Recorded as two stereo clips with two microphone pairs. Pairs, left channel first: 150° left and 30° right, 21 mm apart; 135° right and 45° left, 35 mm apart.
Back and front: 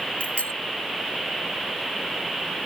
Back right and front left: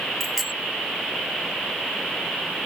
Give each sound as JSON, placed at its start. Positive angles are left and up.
{"t": 0.2, "sound": "a bicycle bell", "azimuth_deg": 135}